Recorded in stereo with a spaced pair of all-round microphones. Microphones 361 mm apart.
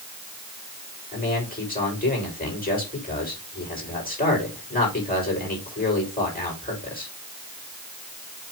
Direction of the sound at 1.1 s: 25° left (ahead or behind).